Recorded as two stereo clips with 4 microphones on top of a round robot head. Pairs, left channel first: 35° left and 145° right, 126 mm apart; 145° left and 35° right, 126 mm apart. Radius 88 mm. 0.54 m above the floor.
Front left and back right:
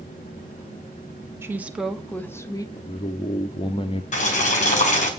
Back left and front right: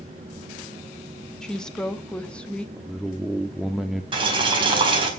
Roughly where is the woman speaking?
Behind right.